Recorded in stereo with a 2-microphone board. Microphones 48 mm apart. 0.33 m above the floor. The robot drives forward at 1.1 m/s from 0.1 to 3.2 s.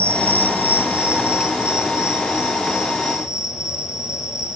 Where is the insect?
55° right (ahead or behind), 0.9 m; by 4.6 s 10° right (ahead or behind), 4 m.